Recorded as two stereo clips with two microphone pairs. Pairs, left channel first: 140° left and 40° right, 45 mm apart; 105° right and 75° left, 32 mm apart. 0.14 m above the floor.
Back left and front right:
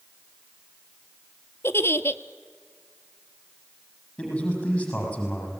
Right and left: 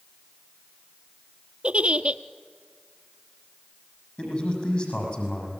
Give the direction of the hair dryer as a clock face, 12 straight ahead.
No hair dryer in this recording.